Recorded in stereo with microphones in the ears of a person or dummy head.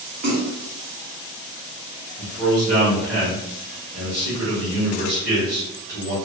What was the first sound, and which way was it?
A splash, 35° right (ahead or behind).